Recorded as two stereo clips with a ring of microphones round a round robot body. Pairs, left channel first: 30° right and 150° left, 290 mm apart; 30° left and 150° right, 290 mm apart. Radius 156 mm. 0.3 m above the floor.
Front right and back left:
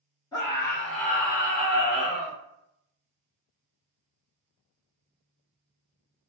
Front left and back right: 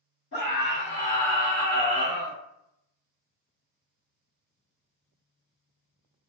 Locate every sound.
0.3 s a scream: 35° left, 1.7 m; by 2.4 s 165° right, 1.7 m